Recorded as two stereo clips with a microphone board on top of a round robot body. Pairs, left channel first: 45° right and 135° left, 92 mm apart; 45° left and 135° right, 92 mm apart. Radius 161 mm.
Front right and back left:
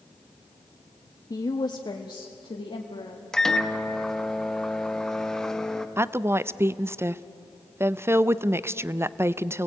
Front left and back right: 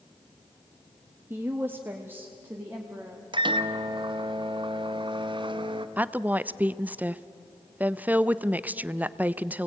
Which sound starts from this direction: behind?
A woman speaking, at 6.0 s.